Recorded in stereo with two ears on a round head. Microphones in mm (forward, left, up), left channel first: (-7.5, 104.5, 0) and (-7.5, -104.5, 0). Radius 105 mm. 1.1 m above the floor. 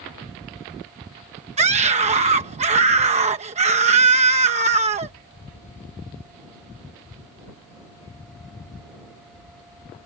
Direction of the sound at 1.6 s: 30° right (ahead or behind).